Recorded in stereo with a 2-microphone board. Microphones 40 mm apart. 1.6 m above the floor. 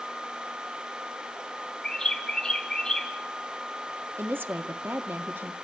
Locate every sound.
1.8 s a bird: 20° left (ahead or behind), 3.5 m
4.2 s a woman speaking: 65° right (ahead or behind), 1.0 m